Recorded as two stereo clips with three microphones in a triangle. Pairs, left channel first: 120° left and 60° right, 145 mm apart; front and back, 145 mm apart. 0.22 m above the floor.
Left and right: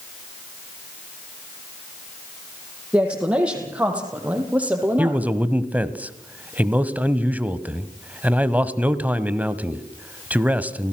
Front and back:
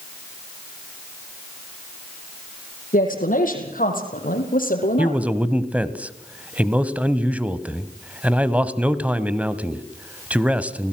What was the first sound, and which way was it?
A woman speaking, 20° left.